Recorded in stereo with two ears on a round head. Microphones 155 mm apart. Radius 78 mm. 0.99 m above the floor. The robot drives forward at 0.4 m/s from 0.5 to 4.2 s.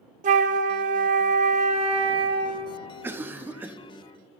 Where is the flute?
45° right (ahead or behind), 0.6 m; by 2.7 s 25° right (ahead or behind), 0.9 m.